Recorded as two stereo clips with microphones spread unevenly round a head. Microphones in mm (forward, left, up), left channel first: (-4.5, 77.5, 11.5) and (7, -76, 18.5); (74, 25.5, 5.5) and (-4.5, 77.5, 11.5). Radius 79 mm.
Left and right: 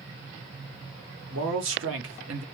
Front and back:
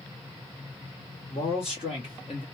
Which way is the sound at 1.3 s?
90° right.